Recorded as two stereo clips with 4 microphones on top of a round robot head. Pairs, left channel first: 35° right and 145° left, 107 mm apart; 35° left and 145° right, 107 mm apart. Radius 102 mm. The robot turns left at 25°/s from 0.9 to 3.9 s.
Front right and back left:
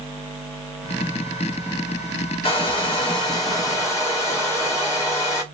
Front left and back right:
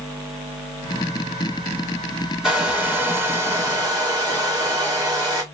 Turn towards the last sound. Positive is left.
turn(degrees=-95)